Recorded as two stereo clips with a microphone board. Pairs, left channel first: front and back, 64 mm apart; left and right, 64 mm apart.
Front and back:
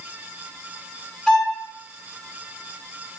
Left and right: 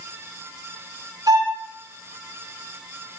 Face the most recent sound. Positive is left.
turn(degrees=-85)